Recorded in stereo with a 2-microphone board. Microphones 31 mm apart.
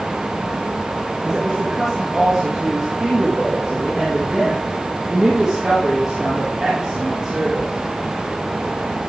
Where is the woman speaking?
15° right (ahead or behind), 3 m.